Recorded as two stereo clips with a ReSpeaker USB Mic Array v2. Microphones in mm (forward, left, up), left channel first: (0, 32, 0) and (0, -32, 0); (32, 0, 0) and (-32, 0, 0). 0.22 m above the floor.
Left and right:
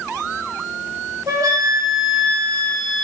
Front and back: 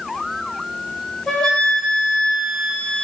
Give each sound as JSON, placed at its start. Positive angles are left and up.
{"t": 1.3, "sound": "a flute", "azimuth_deg": -85, "distance_m": 0.6}